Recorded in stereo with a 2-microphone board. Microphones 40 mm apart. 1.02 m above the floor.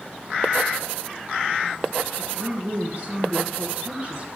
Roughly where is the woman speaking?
Right.